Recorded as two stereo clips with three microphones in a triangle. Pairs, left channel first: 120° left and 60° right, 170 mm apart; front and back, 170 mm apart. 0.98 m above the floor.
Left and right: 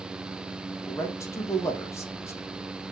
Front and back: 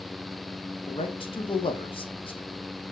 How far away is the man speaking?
About 0.8 m.